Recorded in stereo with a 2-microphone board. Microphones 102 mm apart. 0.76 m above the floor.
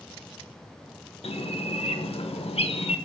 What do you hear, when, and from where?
1.2 s a bird: 75° left (ahead or behind), 1.2 m